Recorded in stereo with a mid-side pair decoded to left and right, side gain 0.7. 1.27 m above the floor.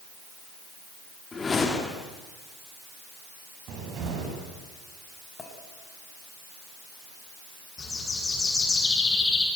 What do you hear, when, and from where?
1.3 s a whoosh: 25° left, 2.5 m
3.7 s a cupboard door: 50° right, 8 m
5.4 s a clink: 25° left, 7 m
7.8 s a bird: 20° left, 9 m